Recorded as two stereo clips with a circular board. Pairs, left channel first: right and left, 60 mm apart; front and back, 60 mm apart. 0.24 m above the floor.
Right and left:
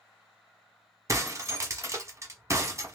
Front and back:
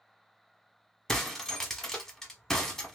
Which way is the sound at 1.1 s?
80° left.